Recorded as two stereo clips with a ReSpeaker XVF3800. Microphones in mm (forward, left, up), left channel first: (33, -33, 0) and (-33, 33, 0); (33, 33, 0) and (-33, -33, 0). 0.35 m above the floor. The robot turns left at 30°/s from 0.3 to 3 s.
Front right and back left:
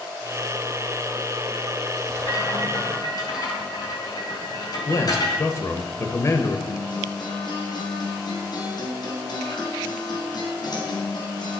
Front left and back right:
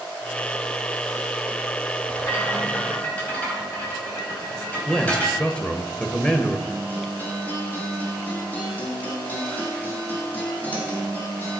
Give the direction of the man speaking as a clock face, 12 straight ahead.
1 o'clock.